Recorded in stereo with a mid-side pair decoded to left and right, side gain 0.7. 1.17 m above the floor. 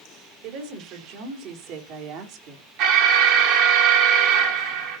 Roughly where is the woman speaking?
Ahead right.